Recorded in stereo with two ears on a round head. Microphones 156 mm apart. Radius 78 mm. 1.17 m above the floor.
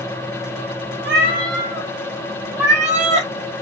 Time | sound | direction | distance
1.0 | a cat meowing | 60° right (ahead or behind) | 2.5 m